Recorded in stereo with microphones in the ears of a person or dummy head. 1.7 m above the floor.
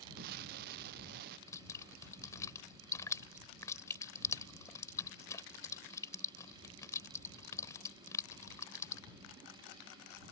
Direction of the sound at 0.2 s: 55° right (ahead or behind).